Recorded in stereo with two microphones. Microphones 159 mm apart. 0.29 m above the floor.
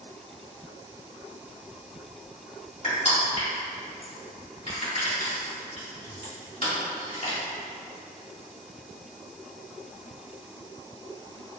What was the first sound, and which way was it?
Crushing, 45° left (ahead or behind).